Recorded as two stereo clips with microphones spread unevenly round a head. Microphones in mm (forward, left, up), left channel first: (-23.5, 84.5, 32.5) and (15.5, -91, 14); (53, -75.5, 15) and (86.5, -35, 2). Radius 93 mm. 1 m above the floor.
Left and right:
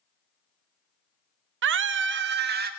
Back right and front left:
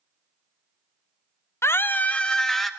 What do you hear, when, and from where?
1.6 s a scream: 85° right, 0.7 m; by 2.7 s 40° right, 1.1 m